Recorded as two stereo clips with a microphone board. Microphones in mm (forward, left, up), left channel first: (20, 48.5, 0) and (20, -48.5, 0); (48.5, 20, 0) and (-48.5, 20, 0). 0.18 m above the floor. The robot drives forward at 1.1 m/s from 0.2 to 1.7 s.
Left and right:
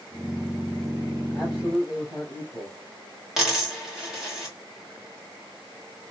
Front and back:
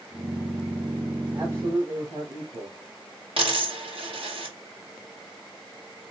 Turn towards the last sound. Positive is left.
turn(degrees=-175)